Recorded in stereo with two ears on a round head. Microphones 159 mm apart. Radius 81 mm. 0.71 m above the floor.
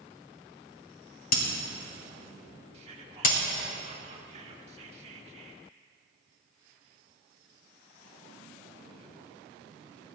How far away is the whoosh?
I don't hear a whoosh.